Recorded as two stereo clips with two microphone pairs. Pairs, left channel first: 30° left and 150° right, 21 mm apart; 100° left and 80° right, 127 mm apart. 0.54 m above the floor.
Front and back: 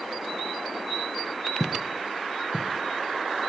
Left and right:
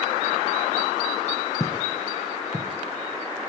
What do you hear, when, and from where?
1.6 s footsteps: 140° left, 0.6 m; by 2.8 s 165° right, 2 m